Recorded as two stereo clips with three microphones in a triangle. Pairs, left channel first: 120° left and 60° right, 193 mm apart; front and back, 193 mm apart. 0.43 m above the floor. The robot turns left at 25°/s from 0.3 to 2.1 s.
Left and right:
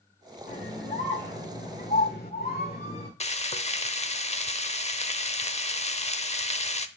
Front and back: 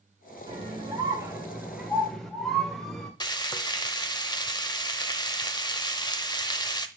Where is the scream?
125° left, 1.7 m; by 3.1 s 85° left, 1.7 m.